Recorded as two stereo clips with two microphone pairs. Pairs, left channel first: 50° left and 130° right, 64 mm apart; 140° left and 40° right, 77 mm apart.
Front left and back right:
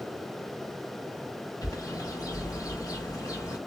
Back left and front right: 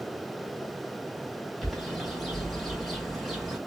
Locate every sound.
1.6 s a bird: 50° left, 1.1 m